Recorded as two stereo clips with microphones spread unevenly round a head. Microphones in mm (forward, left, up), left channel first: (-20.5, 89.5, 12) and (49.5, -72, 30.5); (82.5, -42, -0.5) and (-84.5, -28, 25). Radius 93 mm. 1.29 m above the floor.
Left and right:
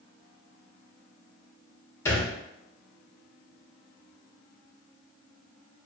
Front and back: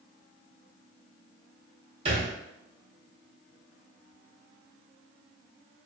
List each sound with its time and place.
2.0 s a thud: 170° right, 0.9 m